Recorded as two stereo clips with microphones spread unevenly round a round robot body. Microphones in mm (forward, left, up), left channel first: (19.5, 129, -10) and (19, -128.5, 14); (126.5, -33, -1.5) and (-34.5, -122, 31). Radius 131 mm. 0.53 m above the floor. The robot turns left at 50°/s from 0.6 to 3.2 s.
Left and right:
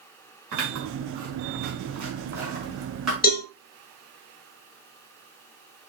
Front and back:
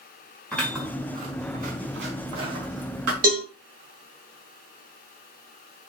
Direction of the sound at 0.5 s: 55° right.